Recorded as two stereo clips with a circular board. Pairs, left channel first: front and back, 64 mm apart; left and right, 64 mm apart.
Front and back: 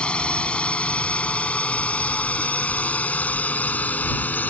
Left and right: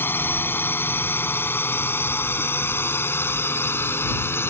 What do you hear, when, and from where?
0.0 s a drone: 65° left; by 4.5 s 55° left